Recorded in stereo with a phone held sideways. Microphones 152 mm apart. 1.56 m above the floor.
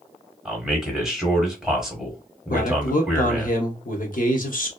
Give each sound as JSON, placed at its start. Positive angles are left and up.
{"t": 0.5, "sound": "a man speaking", "side_deg": -5, "distance_m": 1.2}
{"t": 2.5, "sound": "a man speaking", "side_deg": 65, "distance_m": 0.8}